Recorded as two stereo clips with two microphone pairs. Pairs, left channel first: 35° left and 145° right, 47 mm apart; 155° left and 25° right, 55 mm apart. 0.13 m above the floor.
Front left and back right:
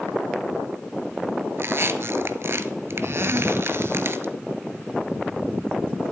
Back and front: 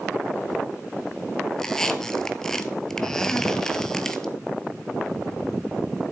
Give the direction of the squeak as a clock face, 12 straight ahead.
4 o'clock.